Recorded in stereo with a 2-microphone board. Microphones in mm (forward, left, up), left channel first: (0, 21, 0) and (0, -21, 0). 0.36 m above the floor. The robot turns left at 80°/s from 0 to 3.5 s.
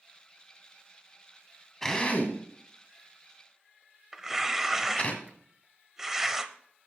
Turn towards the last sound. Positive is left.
turn(degrees=-10)  # may be behind; listen again after turning